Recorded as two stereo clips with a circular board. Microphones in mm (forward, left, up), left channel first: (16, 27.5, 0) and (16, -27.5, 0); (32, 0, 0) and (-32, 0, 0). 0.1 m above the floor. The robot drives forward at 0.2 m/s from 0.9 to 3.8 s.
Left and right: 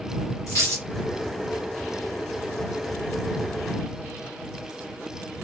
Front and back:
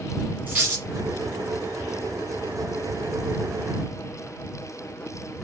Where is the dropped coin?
120° left, 2 m.